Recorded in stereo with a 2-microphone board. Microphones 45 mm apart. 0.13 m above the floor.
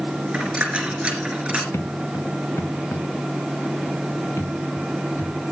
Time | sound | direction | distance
0.3 | a dropped coin | 25° right (ahead or behind) | 3 m
1.7 | footsteps | 75° left (ahead or behind) | 1.2 m